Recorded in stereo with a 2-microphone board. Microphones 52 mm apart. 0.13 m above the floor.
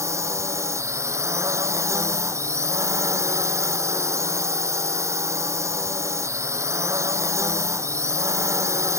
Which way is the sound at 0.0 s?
70° right (ahead or behind).